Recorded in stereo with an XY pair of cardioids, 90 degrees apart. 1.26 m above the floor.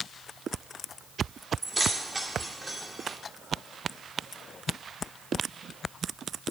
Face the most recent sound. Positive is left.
turn(degrees=-20)